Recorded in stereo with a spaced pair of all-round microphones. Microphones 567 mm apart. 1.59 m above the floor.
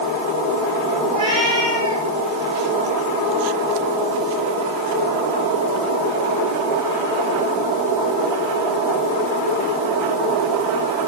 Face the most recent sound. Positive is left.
turn(degrees=-10)  # may be behind; listen again after turning